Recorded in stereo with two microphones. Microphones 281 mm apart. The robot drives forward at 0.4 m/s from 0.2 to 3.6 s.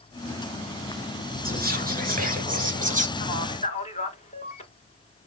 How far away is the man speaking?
About 1.2 m.